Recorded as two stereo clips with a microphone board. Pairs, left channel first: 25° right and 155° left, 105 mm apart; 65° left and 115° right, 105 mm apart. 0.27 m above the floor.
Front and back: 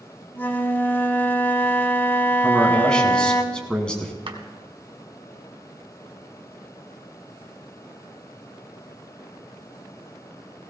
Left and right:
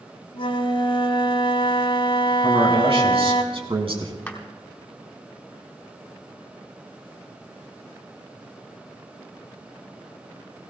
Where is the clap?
145° left, 1.8 m.